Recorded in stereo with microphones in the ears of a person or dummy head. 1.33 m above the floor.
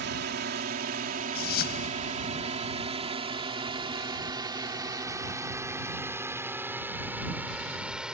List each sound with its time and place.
0.0 s a drone: 60° right (ahead or behind); by 8.1 s 5° right (ahead or behind)
1.4 s a whoosh: 65° left (ahead or behind)